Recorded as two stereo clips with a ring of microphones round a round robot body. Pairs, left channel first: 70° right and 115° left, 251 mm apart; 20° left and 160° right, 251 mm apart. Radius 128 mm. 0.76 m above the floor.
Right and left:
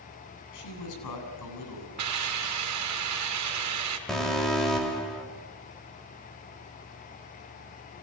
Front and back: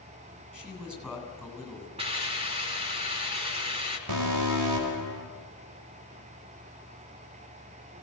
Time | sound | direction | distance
0.5 | a man speaking | 70° right | 8 m
2.0 | a hiss | 135° left | 4 m
4.1 | an alarm | 155° right | 4 m